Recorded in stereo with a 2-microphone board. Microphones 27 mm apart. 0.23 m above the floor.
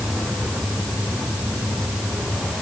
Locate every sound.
Only background noise.